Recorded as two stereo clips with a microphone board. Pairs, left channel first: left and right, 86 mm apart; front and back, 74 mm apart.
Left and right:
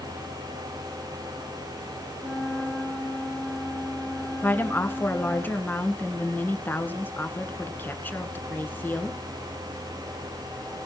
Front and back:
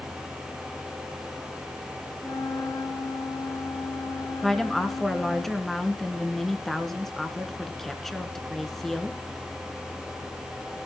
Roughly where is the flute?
Ahead.